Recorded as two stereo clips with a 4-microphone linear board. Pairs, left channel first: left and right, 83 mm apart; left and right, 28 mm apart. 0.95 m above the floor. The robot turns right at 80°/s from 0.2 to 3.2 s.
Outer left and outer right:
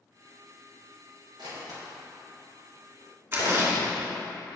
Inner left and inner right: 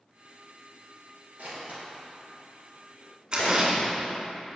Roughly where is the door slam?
Right.